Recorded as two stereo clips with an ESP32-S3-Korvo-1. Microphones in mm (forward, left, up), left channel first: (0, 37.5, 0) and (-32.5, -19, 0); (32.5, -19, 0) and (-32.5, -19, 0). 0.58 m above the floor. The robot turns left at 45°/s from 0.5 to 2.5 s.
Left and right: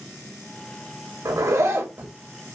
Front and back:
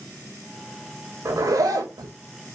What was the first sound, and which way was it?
A zipper, 145° right.